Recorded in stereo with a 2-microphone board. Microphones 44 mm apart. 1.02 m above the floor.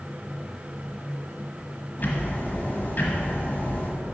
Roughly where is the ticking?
Left.